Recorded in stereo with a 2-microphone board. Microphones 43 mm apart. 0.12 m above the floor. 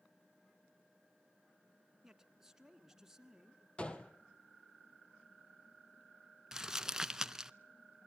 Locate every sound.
2.0 s a man speaking: 10° right (ahead or behind), 1.4 m
3.8 s a gunshot: 25° left (ahead or behind), 1.6 m
6.5 s crumpling: 15° right (ahead or behind), 0.6 m